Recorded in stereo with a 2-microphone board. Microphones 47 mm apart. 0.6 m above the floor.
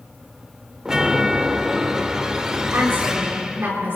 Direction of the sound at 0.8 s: 10° right (ahead or behind).